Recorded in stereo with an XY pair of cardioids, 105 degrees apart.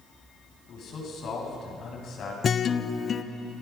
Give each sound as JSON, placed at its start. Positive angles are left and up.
{"t": 0.7, "sound": "a man speaking", "azimuth_deg": 60, "distance_m": 8.0}
{"t": 2.4, "sound": "a guitar", "azimuth_deg": 45, "distance_m": 1.0}